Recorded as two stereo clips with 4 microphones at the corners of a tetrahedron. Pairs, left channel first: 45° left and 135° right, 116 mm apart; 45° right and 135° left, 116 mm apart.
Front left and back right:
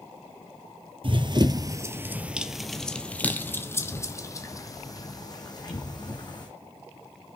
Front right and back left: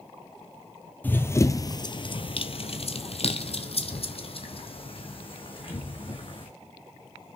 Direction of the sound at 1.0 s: 115° right.